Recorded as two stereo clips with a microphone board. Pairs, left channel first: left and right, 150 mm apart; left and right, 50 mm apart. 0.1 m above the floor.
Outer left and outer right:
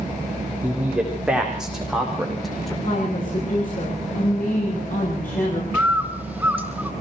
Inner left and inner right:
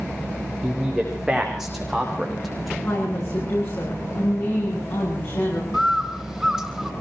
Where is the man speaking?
10° right (ahead or behind), 7 m; by 2.7 s centre (ahead or behind), 6.5 m.